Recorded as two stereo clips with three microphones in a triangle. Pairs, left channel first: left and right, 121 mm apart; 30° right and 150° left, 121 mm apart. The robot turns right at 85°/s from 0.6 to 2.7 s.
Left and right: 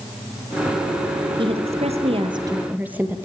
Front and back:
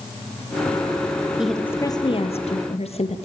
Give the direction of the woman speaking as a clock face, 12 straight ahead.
4 o'clock.